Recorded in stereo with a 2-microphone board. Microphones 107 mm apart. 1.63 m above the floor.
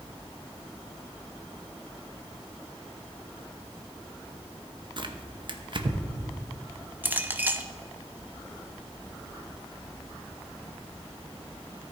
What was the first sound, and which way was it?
Tearing paper, 50° right (ahead or behind).